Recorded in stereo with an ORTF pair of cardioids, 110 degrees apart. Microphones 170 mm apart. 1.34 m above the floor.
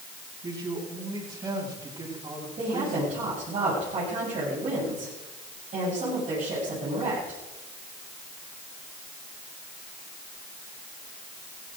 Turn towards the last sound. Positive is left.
turn(degrees=-45)